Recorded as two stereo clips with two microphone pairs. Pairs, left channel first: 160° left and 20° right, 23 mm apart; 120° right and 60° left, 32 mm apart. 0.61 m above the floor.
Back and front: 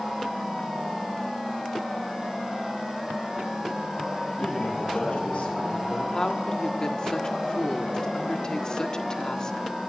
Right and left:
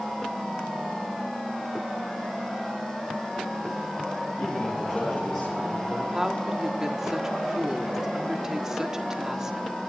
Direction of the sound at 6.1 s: 125° left.